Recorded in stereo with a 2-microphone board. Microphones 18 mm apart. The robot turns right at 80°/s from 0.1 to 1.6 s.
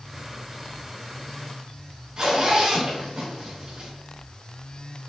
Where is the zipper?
40° right (ahead or behind), 3 m.